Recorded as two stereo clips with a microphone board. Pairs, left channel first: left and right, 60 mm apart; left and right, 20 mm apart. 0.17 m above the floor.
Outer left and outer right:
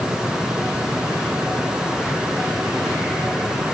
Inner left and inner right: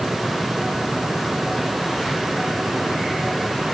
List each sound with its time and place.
Only background noise.